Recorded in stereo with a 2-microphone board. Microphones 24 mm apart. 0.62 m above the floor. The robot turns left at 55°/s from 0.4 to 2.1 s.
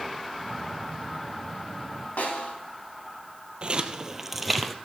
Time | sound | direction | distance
2.2 | a snare drum | 85° left | 2.5 m
3.6 | footsteps | 45° right (ahead or behind) | 1.0 m